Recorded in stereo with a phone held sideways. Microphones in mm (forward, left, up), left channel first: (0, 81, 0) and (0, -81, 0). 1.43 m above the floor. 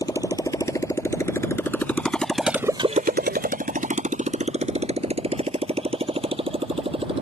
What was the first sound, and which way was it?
A motorcycle, 20° left (ahead or behind).